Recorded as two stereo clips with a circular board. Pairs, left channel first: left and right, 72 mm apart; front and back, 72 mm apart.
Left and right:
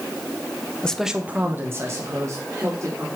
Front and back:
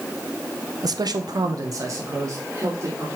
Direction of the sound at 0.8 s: 165° left.